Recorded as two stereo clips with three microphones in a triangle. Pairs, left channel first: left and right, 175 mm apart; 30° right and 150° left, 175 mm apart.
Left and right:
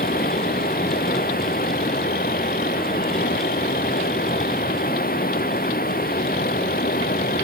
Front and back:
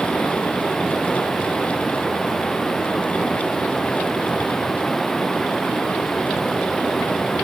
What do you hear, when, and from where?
0.0 s running water: 60° left